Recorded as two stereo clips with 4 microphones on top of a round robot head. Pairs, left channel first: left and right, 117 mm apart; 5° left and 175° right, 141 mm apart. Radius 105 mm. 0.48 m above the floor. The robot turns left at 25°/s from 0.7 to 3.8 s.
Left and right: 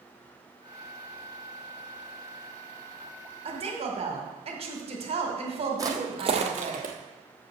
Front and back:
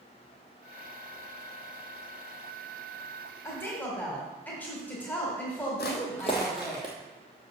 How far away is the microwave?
I don't hear a microwave.